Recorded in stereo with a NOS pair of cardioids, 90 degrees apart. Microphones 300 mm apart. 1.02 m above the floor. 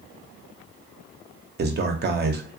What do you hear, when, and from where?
1.6 s a man speaking: 35° right, 0.7 m